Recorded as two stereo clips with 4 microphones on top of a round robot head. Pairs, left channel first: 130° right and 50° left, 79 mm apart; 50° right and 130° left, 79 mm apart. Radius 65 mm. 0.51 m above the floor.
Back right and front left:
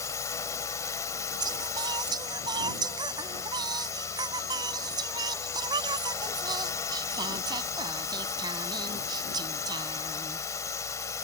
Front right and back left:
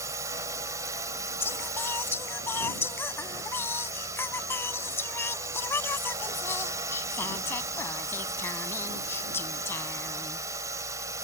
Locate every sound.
0.0 s a drone: straight behind
1.4 s singing: 15° left